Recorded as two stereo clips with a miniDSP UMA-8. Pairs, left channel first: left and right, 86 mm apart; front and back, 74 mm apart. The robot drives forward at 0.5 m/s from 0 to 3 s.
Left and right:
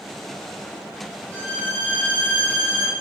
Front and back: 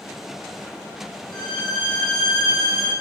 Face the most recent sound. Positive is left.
turn(degrees=20)